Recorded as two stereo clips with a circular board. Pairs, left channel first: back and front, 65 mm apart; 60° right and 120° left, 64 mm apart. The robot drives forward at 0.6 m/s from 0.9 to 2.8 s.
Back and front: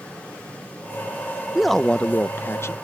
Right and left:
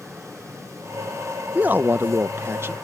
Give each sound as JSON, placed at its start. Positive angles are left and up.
{"t": 1.6, "sound": "a man speaking", "azimuth_deg": 80}